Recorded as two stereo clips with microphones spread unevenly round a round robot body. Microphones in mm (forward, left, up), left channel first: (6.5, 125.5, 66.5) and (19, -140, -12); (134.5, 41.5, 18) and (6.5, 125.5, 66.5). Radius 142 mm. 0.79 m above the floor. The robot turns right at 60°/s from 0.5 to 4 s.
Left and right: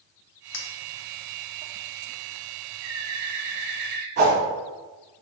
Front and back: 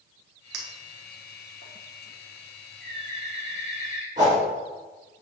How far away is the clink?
About 1.1 m.